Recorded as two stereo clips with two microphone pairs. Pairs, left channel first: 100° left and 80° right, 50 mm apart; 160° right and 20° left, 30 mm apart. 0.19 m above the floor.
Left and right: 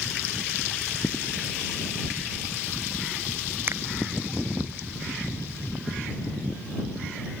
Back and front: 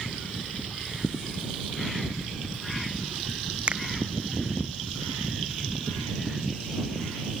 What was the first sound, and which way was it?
A finger snap, 35° right.